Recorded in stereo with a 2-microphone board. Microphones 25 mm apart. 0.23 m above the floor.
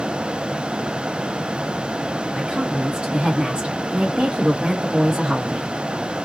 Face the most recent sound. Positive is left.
turn(degrees=-25)  # may be behind; listen again after turning